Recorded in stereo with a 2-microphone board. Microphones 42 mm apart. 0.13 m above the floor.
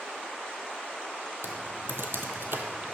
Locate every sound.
1.4 s typing on a keyboard: 65° right (ahead or behind), 0.7 m